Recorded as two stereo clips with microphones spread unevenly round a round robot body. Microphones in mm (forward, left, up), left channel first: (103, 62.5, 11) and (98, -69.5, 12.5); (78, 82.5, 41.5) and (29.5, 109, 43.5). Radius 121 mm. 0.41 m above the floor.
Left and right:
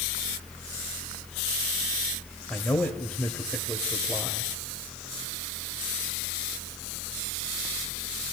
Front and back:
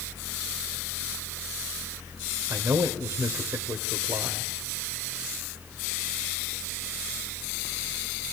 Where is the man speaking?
170° left, 1.6 m.